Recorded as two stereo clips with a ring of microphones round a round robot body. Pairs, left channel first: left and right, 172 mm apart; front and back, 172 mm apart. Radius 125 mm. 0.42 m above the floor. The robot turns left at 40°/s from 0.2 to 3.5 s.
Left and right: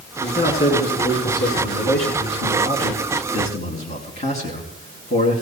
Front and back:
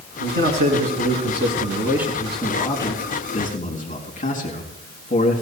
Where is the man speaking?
175° left, 4.5 m; by 5.4 s 40° left, 4.5 m.